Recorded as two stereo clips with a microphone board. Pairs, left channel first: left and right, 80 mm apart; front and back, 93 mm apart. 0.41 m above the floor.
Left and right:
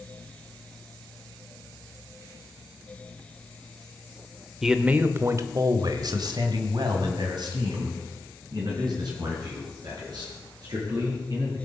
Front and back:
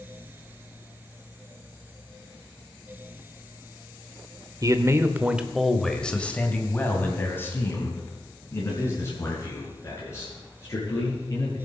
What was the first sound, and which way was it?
A man speaking, 170° right.